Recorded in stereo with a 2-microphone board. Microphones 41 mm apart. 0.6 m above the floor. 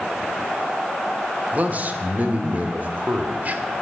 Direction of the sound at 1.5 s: 40° right (ahead or behind).